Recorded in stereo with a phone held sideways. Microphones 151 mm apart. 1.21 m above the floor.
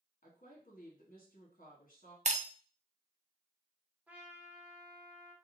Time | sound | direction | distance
0.2 | a woman speaking | 60° left (ahead or behind) | 1.7 m
2.2 | breaking glass | 50° right (ahead or behind) | 0.5 m
4.1 | a trumpet | 10° right (ahead or behind) | 0.8 m